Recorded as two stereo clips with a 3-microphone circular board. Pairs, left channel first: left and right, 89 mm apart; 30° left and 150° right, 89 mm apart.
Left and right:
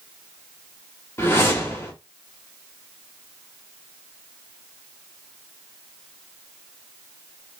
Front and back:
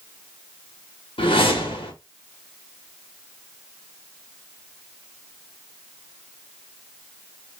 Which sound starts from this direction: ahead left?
A whoosh, at 1.2 s.